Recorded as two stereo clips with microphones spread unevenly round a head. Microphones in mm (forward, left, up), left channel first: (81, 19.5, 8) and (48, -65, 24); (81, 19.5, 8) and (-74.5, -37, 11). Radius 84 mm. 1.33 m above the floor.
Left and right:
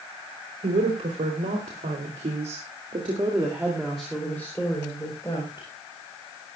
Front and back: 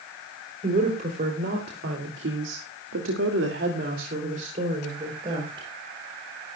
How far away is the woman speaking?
About 3.5 m.